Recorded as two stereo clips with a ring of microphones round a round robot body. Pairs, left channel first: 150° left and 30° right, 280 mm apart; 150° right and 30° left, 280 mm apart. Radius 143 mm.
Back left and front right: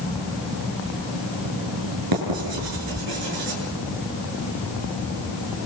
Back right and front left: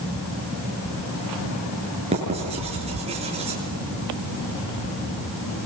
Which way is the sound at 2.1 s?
40° right.